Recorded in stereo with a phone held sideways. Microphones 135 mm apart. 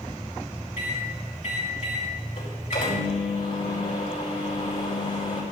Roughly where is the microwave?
Left.